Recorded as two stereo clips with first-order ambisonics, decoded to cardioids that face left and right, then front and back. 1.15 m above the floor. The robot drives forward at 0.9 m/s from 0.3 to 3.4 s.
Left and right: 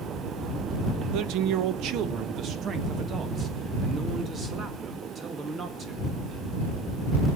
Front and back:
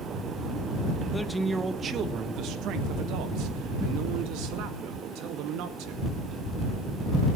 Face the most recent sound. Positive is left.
turn(degrees=-155)